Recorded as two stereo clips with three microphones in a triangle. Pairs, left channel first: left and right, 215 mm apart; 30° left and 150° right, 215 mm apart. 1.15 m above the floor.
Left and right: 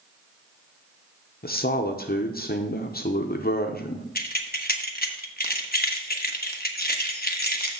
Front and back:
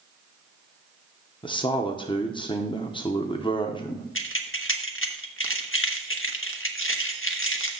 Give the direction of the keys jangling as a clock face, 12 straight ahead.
10 o'clock.